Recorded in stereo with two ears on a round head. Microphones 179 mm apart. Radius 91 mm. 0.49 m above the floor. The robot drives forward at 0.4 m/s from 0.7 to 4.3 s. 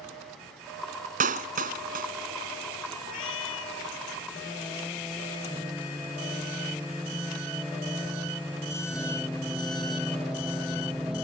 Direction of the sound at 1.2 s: 40° right (ahead or behind).